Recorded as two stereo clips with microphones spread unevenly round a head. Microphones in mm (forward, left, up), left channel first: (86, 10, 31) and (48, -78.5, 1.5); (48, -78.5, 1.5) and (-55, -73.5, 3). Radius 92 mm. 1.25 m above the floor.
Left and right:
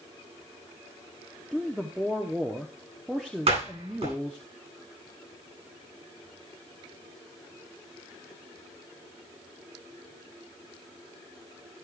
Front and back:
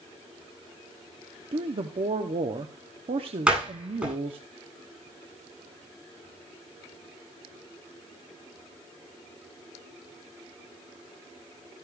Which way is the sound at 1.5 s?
175° left.